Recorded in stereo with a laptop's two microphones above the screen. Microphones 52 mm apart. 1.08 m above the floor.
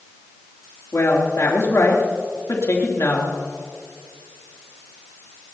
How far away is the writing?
I don't hear writing.